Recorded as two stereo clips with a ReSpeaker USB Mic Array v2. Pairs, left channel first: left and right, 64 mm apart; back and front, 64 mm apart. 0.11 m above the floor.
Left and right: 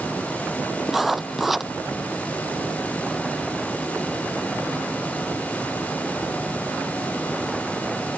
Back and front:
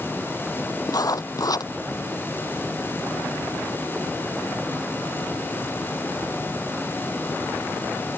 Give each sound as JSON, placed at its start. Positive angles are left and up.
{"t": 0.9, "sound": "writing", "azimuth_deg": -175}